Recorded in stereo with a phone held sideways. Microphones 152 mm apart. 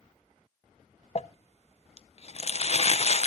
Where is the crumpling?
45° left (ahead or behind), 0.5 m.